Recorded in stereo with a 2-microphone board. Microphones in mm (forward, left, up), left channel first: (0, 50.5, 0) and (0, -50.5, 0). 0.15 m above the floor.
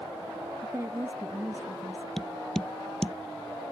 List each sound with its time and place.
0.6 s a woman speaking: 25° right (ahead or behind)
2.2 s tapping: 5° left (ahead or behind)